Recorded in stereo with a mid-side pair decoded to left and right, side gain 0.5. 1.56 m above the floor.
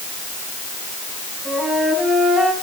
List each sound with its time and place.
1.4 s a flute: straight ahead, 9.5 m